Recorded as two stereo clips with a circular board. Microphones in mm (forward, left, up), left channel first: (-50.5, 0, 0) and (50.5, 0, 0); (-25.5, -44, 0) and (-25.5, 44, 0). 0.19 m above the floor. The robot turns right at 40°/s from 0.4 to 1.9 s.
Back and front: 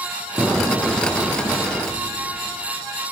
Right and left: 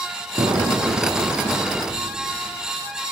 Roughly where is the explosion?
Left.